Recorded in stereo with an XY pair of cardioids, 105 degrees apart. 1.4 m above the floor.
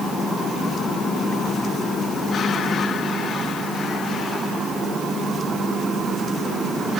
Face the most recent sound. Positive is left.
No sound to turn to.